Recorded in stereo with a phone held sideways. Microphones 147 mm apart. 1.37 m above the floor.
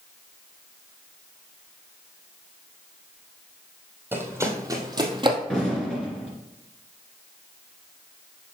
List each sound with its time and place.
4.1 s running footsteps: 15° right (ahead or behind), 1.7 m; by 5.4 s 35° right (ahead or behind), 1.6 m
5.5 s an explosion: 5° left (ahead or behind), 3 m